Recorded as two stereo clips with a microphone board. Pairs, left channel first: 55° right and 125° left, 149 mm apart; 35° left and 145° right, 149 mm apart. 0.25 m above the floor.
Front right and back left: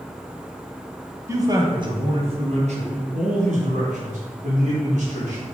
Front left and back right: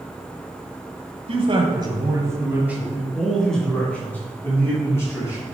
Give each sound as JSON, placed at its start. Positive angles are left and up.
{"t": 1.3, "sound": "a man speaking", "azimuth_deg": -175, "distance_m": 1.7}